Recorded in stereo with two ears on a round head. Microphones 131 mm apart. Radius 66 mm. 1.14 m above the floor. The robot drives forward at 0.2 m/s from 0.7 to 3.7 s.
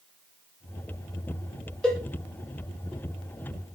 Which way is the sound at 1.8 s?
5° left (ahead or behind).